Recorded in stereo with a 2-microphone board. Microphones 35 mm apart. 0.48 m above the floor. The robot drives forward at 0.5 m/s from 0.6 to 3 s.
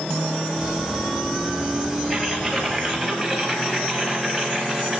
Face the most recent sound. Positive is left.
turn(degrees=5)  # may be behind; listen again after turning